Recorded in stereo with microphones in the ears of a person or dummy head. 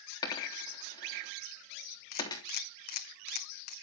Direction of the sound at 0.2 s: 20° left (ahead or behind).